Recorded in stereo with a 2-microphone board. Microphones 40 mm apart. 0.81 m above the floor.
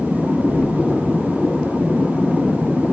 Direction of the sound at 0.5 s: 85° left.